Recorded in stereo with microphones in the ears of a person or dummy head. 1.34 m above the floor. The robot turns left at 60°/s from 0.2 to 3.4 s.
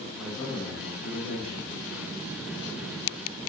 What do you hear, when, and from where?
0.2 s a man speaking: 170° right, 1.6 m; by 1.7 s 100° left, 1.6 m